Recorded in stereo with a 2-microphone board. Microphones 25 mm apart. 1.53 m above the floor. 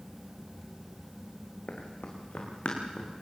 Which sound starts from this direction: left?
Running footsteps, at 1.7 s.